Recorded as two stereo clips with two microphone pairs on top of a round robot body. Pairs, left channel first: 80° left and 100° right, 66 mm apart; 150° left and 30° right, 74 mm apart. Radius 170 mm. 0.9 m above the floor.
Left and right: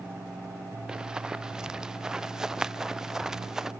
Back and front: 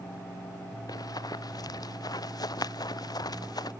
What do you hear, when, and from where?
0.9 s running footsteps: straight behind